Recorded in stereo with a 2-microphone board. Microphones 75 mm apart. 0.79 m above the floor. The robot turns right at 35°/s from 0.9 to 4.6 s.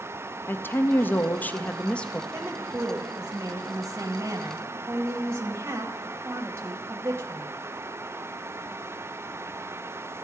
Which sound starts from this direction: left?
A woman speaking, at 0.5 s.